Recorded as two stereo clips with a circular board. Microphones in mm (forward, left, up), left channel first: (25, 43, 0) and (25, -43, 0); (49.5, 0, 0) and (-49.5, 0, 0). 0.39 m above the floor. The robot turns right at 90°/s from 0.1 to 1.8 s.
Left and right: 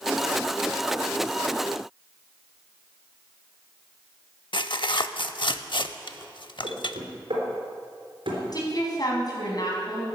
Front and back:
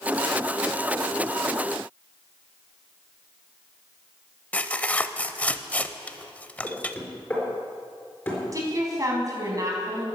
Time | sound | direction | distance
4.5 | tearing paper | 75° left | 0.5 m
6.6 | knocking | 75° right | 4 m
8.5 | a woman speaking | 130° left | 3.5 m